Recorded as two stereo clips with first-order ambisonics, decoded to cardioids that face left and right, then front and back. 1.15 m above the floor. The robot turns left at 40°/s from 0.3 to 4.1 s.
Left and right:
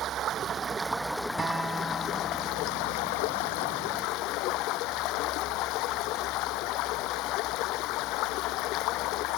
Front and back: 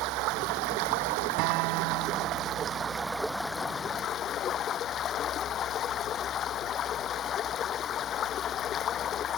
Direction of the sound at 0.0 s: 150° right.